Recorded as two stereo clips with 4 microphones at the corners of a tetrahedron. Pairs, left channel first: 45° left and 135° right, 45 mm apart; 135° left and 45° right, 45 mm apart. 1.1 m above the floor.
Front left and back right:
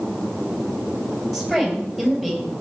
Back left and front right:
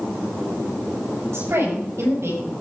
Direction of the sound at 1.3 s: 40° right.